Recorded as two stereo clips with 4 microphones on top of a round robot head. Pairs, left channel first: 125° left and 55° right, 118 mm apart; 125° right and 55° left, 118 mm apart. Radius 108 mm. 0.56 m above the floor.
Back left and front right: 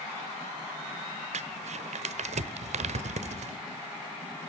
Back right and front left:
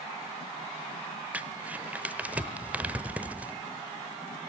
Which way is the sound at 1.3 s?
25° right.